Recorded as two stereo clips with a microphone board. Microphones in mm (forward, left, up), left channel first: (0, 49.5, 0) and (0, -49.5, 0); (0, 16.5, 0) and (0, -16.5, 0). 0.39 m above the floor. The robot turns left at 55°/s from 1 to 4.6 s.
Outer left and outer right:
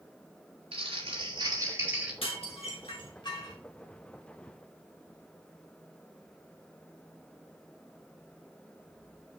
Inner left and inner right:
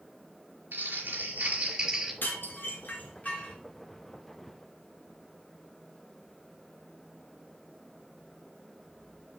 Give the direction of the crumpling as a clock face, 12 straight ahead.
4 o'clock.